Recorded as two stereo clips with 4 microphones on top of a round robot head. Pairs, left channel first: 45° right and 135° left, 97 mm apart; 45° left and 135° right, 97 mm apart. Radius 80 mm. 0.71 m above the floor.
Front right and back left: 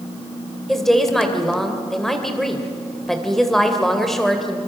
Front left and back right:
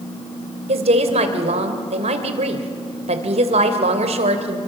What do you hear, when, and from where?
0.7 s a woman speaking: 135° right, 3 m